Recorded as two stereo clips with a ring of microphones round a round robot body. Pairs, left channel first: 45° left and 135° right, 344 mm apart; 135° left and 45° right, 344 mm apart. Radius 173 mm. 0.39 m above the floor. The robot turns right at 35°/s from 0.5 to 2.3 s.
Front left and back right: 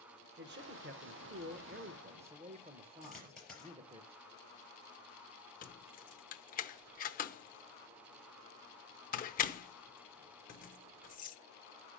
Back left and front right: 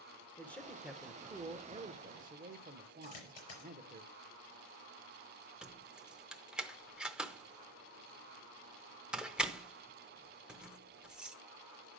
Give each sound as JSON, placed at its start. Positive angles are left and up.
{"t": 0.4, "sound": "a man speaking", "azimuth_deg": -145, "distance_m": 0.8}
{"t": 3.0, "sound": "a dropped coin", "azimuth_deg": 135, "distance_m": 4.5}
{"t": 5.6, "sound": "keys jangling", "azimuth_deg": 40, "distance_m": 0.7}